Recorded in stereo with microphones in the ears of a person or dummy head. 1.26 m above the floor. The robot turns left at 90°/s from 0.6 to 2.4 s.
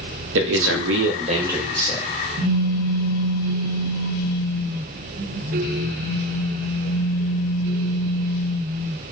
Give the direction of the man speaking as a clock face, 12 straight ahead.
3 o'clock.